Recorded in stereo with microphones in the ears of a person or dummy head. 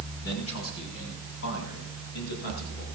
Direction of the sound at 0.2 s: 85° left.